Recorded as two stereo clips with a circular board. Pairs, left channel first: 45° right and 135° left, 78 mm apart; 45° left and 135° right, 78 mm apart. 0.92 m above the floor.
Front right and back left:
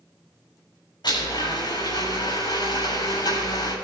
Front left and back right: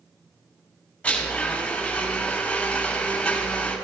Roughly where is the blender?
Ahead right.